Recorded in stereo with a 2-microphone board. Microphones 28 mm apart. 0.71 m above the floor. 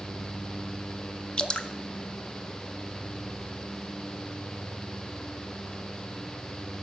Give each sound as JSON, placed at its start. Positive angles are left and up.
{"t": 1.4, "sound": "dripping", "side_deg": 35, "distance_m": 0.5}